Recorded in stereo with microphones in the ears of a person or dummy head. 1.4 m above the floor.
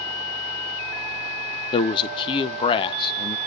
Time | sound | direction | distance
1.7 | a man speaking | 30° left (ahead or behind) | 0.6 m